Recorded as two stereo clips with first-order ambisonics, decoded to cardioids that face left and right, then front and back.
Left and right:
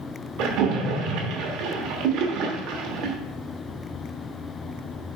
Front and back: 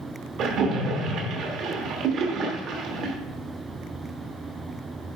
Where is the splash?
125° right, 1.1 m.